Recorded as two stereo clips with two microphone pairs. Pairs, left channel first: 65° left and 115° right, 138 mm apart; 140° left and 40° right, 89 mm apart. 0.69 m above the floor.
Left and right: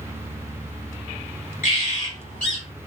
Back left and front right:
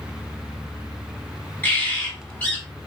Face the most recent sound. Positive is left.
turn(degrees=70)